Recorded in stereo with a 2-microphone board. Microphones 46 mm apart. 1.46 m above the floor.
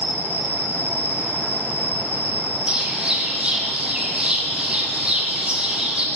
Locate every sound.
0.0 s an insect: 50° right (ahead or behind), 0.8 m
2.7 s a bird: 25° right (ahead or behind), 1.0 m